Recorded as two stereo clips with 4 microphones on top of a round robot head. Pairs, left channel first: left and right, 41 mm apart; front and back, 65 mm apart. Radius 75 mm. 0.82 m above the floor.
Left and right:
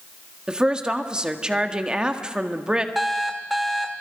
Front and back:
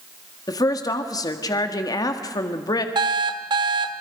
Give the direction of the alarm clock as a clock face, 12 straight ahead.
6 o'clock.